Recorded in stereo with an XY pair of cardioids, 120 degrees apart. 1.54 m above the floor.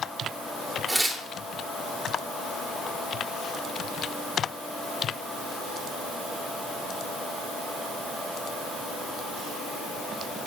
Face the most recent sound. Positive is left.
turn(degrees=0)